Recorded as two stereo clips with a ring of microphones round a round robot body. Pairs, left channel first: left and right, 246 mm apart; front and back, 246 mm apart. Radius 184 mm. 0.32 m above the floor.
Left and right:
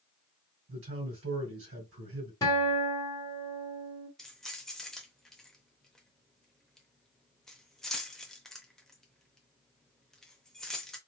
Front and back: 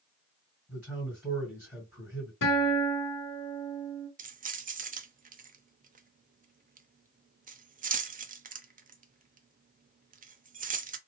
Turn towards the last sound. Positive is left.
turn(degrees=175)